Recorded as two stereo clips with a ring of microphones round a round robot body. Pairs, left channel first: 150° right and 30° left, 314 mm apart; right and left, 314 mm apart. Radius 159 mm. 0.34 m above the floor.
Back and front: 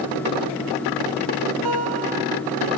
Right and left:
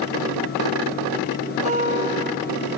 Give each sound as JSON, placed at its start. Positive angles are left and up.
{"t": 1.6, "sound": "a guitar", "azimuth_deg": 20, "distance_m": 3.5}